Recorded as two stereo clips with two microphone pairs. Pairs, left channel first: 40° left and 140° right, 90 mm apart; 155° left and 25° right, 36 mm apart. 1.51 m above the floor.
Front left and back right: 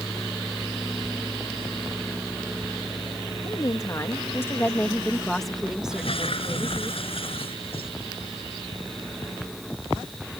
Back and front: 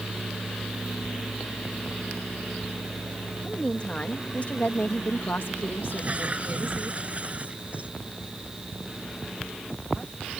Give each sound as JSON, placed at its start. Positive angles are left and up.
{"t": 3.4, "sound": "a woman speaking", "azimuth_deg": 85}
{"t": 5.9, "sound": "a toilet flushing", "azimuth_deg": 25}